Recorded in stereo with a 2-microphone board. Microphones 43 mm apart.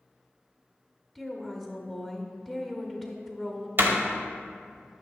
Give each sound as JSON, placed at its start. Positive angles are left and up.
{"t": 1.1, "sound": "a woman speaking", "side_deg": 5, "distance_m": 1.0}
{"t": 3.8, "sound": "a door slam", "side_deg": -55, "distance_m": 1.0}